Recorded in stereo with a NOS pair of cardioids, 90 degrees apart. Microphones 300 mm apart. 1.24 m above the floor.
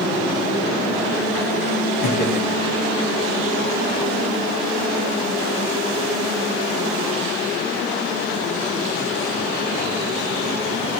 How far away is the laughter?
About 2.5 m.